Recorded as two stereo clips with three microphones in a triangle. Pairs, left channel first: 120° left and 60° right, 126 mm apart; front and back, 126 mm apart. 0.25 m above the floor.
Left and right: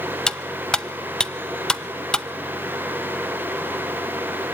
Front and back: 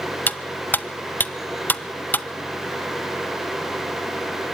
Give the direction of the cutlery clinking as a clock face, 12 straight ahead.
10 o'clock.